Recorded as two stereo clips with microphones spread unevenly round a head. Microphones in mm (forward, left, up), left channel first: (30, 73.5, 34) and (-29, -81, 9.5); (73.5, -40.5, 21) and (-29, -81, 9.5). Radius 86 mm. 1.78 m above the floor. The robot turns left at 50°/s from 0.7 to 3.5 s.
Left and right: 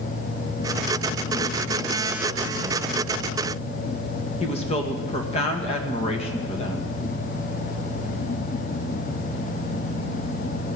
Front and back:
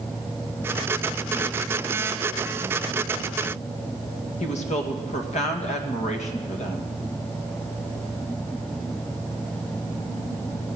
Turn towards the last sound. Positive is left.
turn(degrees=15)